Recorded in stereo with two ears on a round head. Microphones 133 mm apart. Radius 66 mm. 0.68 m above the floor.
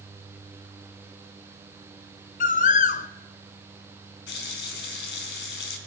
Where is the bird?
55° left (ahead or behind), 0.6 m.